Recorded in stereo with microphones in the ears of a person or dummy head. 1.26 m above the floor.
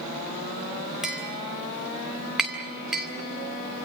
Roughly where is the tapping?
Centre.